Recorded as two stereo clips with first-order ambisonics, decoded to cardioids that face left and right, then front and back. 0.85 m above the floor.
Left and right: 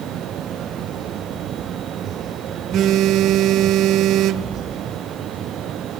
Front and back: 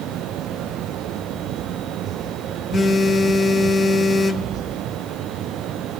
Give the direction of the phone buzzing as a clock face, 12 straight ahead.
3 o'clock.